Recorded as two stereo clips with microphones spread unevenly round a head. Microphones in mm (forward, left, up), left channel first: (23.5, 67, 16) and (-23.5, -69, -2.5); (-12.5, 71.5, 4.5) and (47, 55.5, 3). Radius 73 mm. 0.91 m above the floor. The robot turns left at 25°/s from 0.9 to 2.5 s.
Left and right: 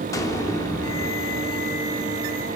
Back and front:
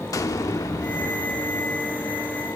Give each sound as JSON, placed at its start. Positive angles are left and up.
{"t": 0.1, "sound": "an explosion", "azimuth_deg": 140, "distance_m": 1.3}